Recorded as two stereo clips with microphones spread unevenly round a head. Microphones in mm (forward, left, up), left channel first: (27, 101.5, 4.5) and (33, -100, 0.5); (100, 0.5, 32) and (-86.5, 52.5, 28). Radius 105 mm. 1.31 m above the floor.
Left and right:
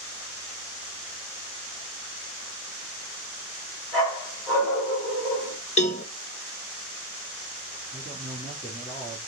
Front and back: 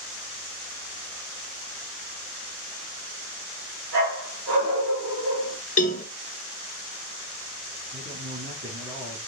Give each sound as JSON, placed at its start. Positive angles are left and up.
{"t": 3.9, "sound": "a dog barking", "azimuth_deg": 175, "distance_m": 5.0}
{"t": 5.8, "sound": "a cowbell", "azimuth_deg": 35, "distance_m": 0.9}
{"t": 7.9, "sound": "a man speaking", "azimuth_deg": -165, "distance_m": 3.5}